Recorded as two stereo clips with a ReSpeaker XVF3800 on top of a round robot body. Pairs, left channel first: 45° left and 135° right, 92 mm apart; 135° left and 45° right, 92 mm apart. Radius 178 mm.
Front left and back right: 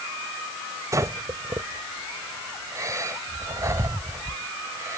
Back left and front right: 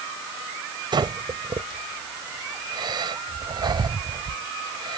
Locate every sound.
0.9 s breathing: 80° right